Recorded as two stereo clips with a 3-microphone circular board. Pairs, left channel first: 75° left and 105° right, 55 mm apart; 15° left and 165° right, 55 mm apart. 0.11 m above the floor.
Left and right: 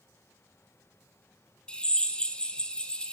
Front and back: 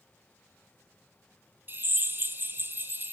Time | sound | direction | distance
1.7 | a drill | 145° left | 1.8 m